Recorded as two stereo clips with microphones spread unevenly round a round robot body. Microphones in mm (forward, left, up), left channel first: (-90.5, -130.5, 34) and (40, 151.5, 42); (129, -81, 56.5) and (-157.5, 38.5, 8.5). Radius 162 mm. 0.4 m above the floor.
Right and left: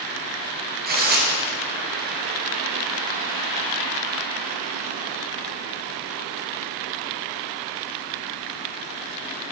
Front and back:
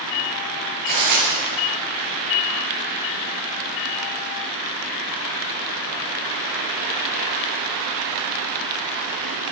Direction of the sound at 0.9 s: 125° left.